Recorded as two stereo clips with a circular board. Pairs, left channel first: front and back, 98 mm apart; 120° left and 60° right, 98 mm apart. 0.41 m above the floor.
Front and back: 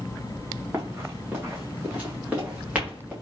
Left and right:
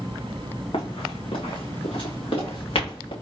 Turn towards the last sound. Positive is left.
turn(degrees=100)